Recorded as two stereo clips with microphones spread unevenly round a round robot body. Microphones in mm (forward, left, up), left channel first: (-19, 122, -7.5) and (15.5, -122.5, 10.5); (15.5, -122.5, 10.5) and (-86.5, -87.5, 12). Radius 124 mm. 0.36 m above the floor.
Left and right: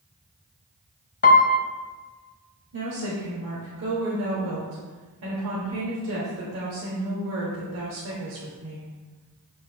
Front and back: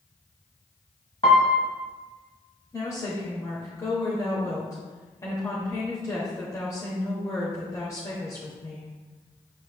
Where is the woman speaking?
65° right, 1.2 m.